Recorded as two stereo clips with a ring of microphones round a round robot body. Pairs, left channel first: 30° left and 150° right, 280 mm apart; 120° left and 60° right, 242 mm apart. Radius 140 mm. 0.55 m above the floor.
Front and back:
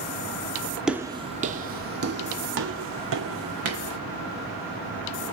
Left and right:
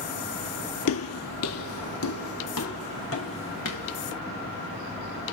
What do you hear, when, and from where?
0.9 s footsteps: 125° left, 0.8 m; by 4.0 s 170° left, 3 m